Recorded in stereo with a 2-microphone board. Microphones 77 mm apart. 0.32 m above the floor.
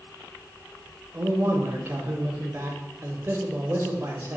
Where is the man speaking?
30° right (ahead or behind), 0.9 m.